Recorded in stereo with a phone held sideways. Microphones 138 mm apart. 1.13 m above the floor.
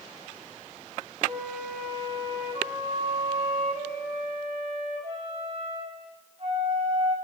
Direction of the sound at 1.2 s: 40° right (ahead or behind).